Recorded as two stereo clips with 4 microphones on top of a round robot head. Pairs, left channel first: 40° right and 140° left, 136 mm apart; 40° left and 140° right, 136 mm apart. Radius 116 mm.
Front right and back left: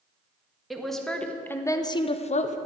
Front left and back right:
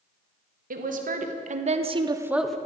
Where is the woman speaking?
130° right, 1.7 m; by 2.6 s 40° right, 0.8 m.